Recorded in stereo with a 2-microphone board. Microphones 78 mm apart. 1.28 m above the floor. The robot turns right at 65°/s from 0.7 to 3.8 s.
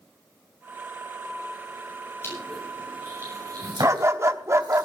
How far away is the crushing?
About 8 m.